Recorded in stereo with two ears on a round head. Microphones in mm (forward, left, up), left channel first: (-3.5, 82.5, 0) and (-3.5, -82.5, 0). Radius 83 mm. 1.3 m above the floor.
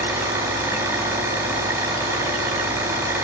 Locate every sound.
0.0 s an engine running: 15° right (ahead or behind), 4 m